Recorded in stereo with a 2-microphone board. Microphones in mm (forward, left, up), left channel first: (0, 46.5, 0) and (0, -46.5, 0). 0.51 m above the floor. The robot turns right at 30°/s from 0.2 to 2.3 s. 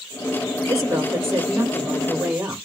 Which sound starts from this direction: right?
A woman speaking, at 0.7 s.